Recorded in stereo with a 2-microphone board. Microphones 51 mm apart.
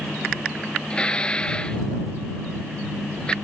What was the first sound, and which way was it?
Dishes clattering, 20° left (ahead or behind).